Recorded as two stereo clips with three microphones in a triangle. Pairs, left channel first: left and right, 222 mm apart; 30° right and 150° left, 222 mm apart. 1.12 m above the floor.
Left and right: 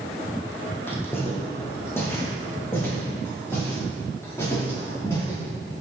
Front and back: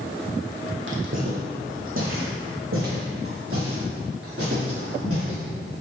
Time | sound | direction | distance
0.9 | footsteps | 170° left | 2.5 m